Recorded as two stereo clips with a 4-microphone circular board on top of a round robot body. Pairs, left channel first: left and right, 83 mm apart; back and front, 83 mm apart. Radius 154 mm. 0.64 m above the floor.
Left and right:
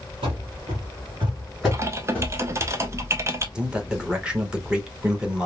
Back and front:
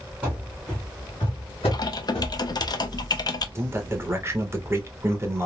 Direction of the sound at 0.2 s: 75° right.